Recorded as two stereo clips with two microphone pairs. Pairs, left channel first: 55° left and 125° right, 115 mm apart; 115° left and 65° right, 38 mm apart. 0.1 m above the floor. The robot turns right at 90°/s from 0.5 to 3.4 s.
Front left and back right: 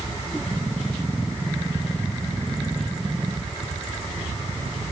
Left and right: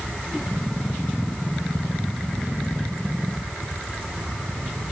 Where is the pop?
No pop in this recording.